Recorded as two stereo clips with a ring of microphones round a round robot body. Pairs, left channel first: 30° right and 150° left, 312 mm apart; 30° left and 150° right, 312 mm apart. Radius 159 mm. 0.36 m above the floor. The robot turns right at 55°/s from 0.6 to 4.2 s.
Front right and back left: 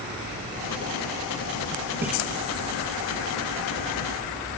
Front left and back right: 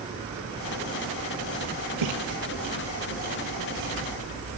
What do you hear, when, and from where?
2.0 s a splash: 125° right, 6 m; by 2.1 s 120° right, 6 m